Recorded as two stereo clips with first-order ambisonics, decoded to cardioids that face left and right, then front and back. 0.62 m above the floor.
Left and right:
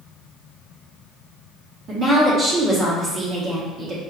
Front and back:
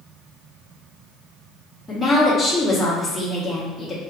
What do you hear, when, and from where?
1.9 s a woman speaking: 80° right, 0.9 m